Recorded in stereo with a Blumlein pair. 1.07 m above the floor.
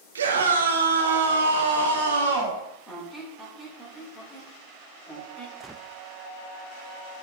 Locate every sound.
0.1 s a scream: 70° right, 1.1 m; by 2.6 s 75° right, 2.5 m
2.9 s a squeak: 5° left, 2.5 m
5.6 s a gunshot: straight ahead, 0.5 m